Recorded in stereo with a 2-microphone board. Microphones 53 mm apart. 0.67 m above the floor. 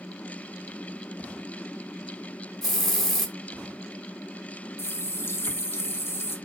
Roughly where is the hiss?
Centre.